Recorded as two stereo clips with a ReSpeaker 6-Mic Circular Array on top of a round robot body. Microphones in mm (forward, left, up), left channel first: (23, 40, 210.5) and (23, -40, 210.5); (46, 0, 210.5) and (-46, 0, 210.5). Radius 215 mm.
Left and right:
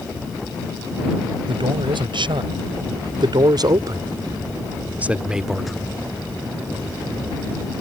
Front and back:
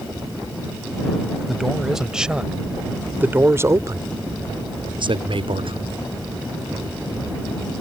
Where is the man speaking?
90° right; by 5.9 s 175° left.